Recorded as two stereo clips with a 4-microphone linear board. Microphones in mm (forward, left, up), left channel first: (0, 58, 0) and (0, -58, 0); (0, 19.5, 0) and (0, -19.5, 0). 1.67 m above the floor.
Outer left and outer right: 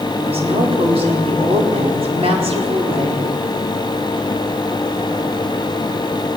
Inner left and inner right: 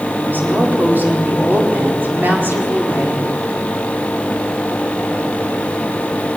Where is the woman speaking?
60° right (ahead or behind), 4.5 m.